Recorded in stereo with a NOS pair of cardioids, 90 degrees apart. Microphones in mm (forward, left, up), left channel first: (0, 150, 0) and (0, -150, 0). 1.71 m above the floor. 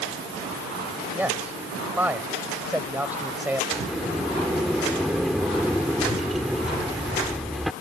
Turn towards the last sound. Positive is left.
turn(degrees=0)